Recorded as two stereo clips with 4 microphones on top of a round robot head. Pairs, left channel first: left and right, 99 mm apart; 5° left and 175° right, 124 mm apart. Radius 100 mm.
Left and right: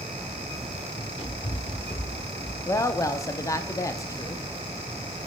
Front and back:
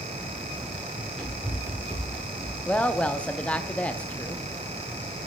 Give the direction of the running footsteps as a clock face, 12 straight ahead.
9 o'clock.